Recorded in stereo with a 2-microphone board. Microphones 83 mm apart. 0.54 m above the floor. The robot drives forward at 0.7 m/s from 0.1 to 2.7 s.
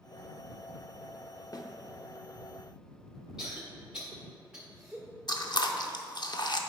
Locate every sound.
1.5 s a snare drum: 50° left (ahead or behind), 0.6 m; by 1.7 s 55° left (ahead or behind), 0.6 m
3.4 s a cough: 10° right (ahead or behind), 1.4 m
5.3 s chewing: 55° left (ahead or behind), 0.6 m